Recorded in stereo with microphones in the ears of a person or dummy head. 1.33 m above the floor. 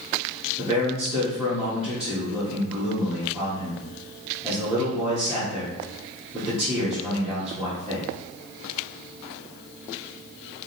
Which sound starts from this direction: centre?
A man speaking, at 0.6 s.